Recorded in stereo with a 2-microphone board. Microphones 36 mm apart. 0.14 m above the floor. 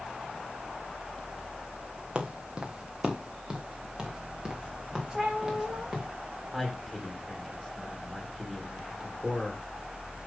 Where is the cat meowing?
20° right (ahead or behind), 2.5 m.